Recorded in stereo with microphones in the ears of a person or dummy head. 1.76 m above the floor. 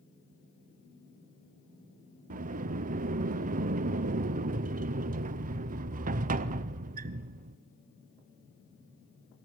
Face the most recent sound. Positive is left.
turn(degrees=-45)  # may be behind; listen again after turning